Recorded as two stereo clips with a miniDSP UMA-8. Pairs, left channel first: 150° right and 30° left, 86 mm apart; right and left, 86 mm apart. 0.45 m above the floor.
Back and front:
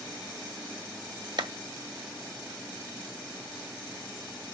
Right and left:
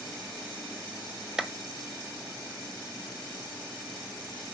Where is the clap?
10° left, 1.4 m.